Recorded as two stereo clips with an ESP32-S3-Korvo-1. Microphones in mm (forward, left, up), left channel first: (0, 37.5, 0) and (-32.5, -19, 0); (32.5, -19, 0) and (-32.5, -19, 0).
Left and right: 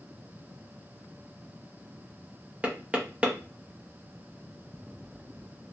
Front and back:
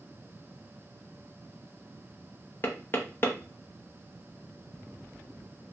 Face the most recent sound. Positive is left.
turn(degrees=-50)